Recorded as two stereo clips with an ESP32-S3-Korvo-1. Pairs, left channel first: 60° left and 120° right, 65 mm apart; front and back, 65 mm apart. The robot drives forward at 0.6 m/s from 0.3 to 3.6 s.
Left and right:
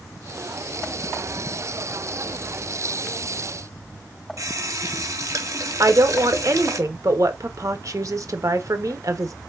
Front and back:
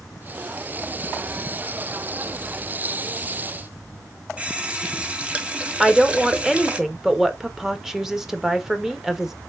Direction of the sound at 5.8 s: 95° right.